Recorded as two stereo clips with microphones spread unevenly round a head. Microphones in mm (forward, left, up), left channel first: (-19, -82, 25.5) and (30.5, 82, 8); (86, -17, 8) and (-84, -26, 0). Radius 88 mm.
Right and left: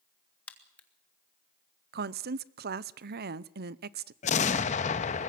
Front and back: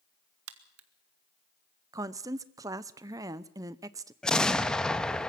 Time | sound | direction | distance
0.5 | a crack | 170° left | 1.8 m
1.9 | a woman speaking | 110° left | 0.7 m
4.2 | an explosion | 80° right | 1.0 m